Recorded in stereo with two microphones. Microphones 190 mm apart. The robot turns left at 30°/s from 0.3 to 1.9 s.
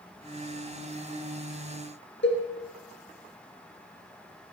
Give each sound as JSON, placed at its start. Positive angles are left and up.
{"t": 2.2, "sound": "a cowbell", "side_deg": 75, "distance_m": 3.0}